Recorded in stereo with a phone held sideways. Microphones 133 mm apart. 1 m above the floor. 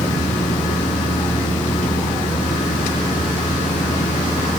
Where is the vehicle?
75° left (ahead or behind); by 4.6 s 80° left.